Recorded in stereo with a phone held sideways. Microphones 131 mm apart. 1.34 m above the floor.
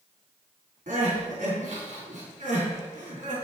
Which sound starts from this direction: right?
Crying, at 0.9 s.